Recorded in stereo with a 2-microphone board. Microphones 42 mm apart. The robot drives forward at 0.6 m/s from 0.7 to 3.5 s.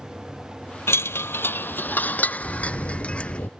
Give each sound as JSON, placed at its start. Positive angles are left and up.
{"t": 0.9, "sound": "a chime", "side_deg": 85}
{"t": 2.4, "sound": "a sliding door", "side_deg": 80}